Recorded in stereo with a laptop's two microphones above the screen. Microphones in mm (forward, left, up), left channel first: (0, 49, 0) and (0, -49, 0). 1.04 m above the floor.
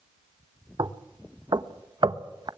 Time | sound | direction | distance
0.8 | knocking | 50° right (ahead or behind) | 0.9 m